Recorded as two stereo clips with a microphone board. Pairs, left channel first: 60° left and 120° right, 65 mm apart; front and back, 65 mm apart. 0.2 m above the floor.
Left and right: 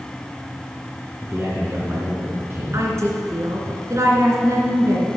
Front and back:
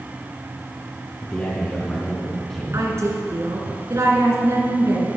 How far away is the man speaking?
About 2.5 m.